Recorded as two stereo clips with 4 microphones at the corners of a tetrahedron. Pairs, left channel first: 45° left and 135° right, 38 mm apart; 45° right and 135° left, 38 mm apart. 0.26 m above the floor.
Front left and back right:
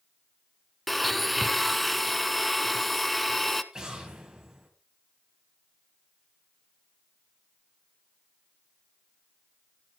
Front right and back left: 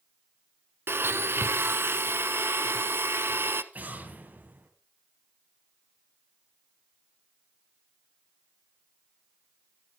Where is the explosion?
160° left, 2.5 m.